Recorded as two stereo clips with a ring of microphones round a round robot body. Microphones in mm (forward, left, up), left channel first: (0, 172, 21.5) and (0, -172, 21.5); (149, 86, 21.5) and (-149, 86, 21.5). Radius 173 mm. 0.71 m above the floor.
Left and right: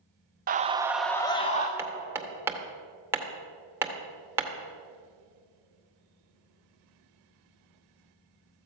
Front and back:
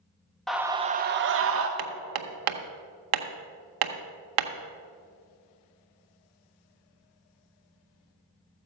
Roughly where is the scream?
Right.